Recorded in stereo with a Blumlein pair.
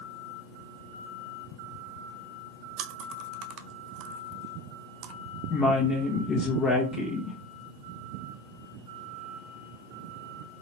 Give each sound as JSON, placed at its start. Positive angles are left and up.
{"t": 2.8, "sound": "chewing", "azimuth_deg": -40, "distance_m": 0.6}
{"t": 5.5, "sound": "a woman speaking", "azimuth_deg": 30, "distance_m": 1.0}